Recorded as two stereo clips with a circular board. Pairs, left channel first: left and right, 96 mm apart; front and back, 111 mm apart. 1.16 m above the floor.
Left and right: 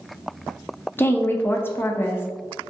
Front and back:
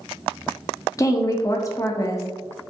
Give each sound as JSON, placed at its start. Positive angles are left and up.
{"t": 1.0, "sound": "a woman speaking", "azimuth_deg": 35, "distance_m": 0.5}